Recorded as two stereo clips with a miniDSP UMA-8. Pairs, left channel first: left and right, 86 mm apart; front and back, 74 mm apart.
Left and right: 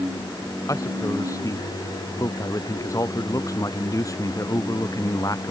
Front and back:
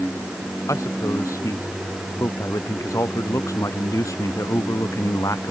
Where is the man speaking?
40° left.